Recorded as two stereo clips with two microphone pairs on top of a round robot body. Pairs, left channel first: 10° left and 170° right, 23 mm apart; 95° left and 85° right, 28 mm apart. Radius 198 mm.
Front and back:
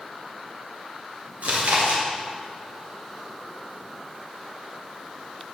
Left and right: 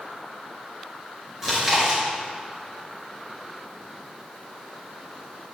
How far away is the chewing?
About 3 m.